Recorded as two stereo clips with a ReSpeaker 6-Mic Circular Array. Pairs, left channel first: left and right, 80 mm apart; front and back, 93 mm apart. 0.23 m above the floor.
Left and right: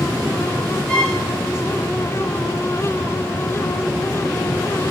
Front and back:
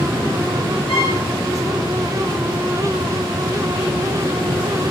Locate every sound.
0.9 s a violin: 15° left, 3 m